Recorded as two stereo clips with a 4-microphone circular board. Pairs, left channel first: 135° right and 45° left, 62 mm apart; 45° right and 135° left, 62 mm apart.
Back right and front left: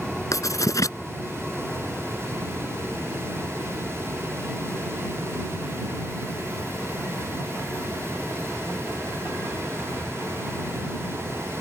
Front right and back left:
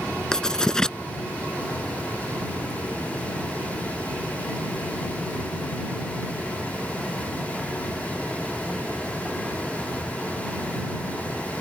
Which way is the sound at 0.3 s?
120° right.